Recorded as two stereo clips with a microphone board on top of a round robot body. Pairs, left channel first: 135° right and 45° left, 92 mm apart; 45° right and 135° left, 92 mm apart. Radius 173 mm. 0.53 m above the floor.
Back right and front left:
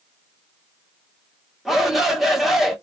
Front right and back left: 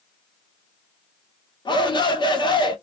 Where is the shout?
40° right, 1.9 m.